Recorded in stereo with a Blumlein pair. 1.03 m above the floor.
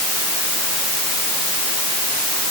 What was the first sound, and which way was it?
Only background noise.